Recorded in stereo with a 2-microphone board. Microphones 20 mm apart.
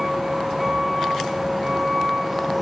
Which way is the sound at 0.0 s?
15° right (ahead or behind).